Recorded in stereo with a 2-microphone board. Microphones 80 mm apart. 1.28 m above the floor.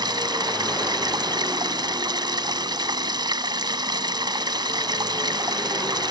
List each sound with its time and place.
0.0 s running water: 65° right (ahead or behind)